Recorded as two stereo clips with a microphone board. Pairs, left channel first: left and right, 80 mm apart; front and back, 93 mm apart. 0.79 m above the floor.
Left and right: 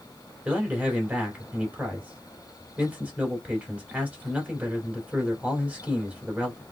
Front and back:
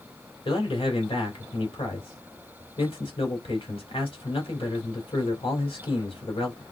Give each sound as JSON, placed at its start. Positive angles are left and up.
{"t": 0.5, "sound": "a man speaking", "azimuth_deg": -20, "distance_m": 2.5}